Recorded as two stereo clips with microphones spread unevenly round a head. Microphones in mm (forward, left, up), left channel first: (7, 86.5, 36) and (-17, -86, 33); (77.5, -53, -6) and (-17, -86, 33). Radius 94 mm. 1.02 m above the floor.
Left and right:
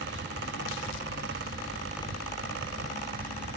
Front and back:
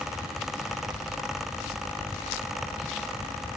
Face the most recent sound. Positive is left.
No sound to turn to.